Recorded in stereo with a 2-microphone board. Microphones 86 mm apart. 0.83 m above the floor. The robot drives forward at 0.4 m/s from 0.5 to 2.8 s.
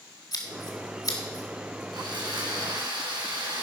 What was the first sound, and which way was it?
Scissors, 50° left (ahead or behind).